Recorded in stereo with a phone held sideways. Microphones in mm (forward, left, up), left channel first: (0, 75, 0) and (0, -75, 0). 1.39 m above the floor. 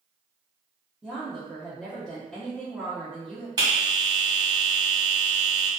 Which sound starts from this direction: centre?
A woman speaking, at 1.0 s.